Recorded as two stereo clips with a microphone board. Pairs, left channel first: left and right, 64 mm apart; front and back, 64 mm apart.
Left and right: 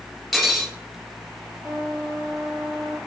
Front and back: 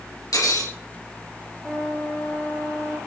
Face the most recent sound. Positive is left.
turn(degrees=-85)